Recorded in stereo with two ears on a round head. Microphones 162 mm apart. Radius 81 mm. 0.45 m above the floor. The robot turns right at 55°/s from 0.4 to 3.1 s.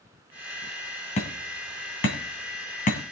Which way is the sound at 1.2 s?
35° left (ahead or behind).